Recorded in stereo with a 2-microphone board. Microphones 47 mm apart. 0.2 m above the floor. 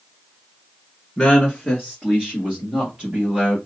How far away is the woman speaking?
About 1.8 m.